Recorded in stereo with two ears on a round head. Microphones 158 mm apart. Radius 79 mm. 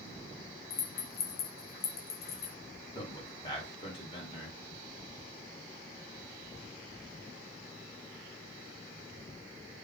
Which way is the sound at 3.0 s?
30° left (ahead or behind).